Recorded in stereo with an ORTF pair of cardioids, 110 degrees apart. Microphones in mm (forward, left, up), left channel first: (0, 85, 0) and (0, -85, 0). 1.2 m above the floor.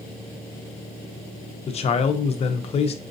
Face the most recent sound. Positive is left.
turn(degrees=40)